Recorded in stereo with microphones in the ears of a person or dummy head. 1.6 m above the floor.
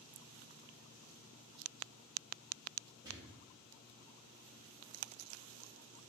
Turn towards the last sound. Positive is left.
turn(degrees=-15)  # may be behind; listen again after turning